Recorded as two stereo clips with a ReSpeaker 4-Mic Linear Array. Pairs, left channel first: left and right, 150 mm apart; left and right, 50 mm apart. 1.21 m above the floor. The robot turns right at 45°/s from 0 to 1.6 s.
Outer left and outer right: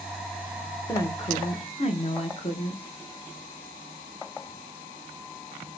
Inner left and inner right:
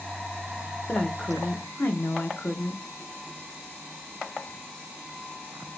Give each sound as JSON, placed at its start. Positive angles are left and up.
{"t": 0.9, "sound": "a woman speaking", "azimuth_deg": 20, "distance_m": 0.7}